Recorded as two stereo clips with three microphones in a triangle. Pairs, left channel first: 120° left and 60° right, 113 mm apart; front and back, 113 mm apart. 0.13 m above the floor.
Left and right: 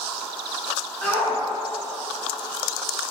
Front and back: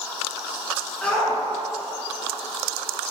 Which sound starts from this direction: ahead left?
A shout, at 1.0 s.